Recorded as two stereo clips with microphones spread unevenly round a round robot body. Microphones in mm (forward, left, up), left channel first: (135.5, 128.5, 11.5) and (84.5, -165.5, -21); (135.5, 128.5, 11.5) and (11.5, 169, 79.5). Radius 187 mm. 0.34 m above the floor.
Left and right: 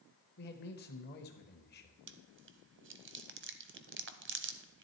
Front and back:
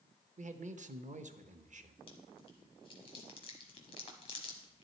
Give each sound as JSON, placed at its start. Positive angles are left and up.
{"t": 0.4, "sound": "a man speaking", "azimuth_deg": 120, "distance_m": 1.0}
{"t": 2.1, "sound": "chewing", "azimuth_deg": -50, "distance_m": 0.9}